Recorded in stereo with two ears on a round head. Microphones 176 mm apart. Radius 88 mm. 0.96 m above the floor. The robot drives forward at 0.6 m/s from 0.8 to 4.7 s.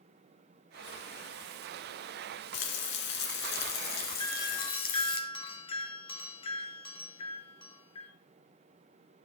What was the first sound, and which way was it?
Frying, 70° left (ahead or behind).